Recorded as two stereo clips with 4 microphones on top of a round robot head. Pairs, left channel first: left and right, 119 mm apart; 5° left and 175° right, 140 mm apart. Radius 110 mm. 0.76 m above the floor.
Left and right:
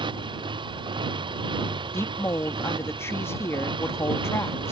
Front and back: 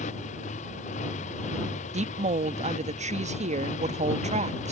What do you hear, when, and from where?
0.0 s a motorcycle: 40° right
1.9 s a woman speaking: 160° left